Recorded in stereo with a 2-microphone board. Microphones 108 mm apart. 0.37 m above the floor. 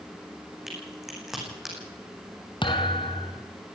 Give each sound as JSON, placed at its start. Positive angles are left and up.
{"t": 0.7, "sound": "a crack", "side_deg": -5, "distance_m": 8.5}
{"t": 2.6, "sound": "a thud", "side_deg": 50, "distance_m": 2.5}